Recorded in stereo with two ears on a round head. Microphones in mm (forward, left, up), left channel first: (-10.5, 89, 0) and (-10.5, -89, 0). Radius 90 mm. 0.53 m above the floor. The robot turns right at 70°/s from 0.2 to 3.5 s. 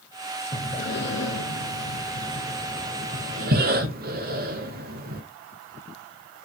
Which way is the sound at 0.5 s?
20° left (ahead or behind).